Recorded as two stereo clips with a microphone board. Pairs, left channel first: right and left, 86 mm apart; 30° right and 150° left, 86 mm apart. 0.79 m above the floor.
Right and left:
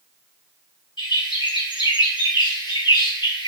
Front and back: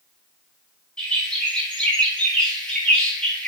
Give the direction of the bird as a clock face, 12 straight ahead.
4 o'clock.